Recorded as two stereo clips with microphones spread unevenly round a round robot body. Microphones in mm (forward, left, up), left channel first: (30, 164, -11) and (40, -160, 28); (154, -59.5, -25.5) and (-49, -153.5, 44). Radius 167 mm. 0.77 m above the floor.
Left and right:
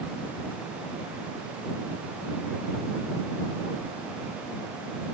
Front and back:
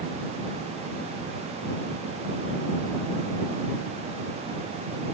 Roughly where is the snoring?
I don't hear snoring.